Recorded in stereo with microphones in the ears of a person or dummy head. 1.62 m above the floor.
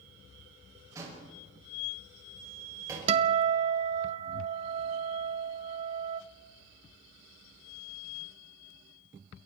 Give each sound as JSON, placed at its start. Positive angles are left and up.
{"t": 0.9, "sound": "a door slam", "side_deg": -20, "distance_m": 6.5}
{"t": 3.1, "sound": "a guitar", "side_deg": -35, "distance_m": 1.0}